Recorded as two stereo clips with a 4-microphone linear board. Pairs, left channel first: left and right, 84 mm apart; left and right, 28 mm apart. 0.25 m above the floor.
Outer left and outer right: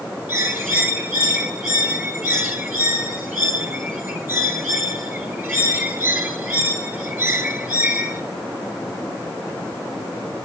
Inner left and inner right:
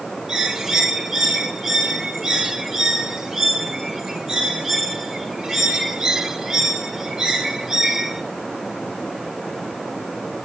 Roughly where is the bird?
Right.